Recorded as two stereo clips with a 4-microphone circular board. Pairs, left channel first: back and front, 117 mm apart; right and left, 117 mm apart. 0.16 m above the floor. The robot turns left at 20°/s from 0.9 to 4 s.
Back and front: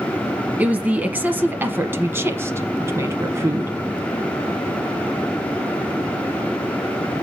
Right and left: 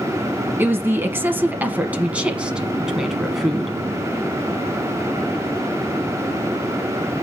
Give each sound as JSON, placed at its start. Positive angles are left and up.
{"t": 0.6, "sound": "a woman speaking", "azimuth_deg": 55, "distance_m": 1.1}